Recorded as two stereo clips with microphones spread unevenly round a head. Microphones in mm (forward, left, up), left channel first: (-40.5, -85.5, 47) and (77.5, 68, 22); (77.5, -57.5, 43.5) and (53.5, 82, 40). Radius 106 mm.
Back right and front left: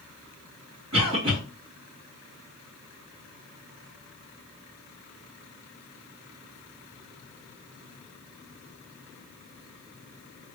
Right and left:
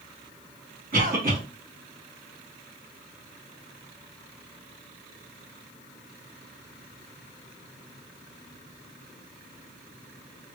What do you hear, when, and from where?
0.9 s a cough: 75° left, 1.9 m